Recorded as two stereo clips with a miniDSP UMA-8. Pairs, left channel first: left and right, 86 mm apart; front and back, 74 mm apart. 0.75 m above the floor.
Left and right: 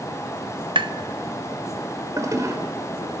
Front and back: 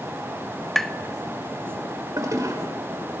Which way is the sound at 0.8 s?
85° right.